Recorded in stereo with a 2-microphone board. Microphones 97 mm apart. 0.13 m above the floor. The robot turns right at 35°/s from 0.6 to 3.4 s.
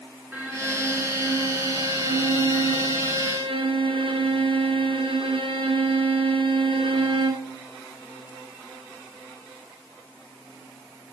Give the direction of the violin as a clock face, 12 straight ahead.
5 o'clock.